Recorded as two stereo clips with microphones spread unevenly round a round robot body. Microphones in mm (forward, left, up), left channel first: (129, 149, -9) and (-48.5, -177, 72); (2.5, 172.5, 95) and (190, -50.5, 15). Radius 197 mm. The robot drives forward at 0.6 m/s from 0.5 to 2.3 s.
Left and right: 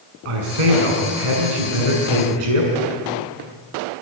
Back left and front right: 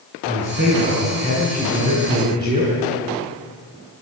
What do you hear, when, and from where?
0.2 s a man speaking: 120° right, 6.5 m; by 2.7 s 130° right, 7 m